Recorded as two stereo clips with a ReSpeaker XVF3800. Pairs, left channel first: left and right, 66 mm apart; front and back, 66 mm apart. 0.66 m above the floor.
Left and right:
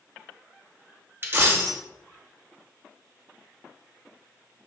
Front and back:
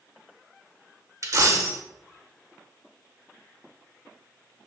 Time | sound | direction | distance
1.2 | a dropped coin | 140° right | 0.7 m